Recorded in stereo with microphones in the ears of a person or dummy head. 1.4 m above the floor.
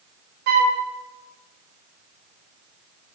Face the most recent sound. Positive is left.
turn(degrees=-50)  # may be behind; listen again after turning